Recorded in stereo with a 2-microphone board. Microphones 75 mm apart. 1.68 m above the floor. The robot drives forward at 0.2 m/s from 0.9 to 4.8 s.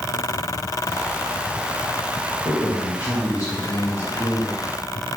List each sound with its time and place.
2.5 s a man speaking: 50° left (ahead or behind), 1.2 m; by 4.7 s 35° left (ahead or behind), 1.5 m